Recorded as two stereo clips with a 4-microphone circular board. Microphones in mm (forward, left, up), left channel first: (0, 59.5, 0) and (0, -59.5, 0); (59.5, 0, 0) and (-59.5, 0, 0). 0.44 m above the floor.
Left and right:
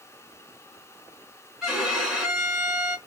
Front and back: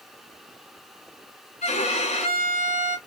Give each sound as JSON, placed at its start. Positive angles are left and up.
{"t": 1.6, "sound": "a violin", "azimuth_deg": -5, "distance_m": 1.1}